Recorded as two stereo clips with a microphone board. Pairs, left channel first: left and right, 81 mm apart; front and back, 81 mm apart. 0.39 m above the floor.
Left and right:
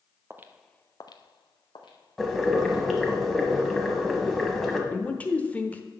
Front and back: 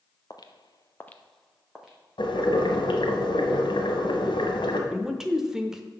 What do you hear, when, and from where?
0.3 s footsteps: 35° right, 0.8 m; by 2.8 s 100° left, 2.5 m
2.2 s boiling: straight ahead, 1.3 m
4.9 s a man speaking: 105° left, 0.9 m